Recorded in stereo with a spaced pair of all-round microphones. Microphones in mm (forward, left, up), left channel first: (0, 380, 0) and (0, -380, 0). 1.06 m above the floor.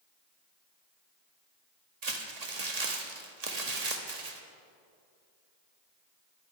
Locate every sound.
2.0 s crumpling: 55° right (ahead or behind), 1.3 m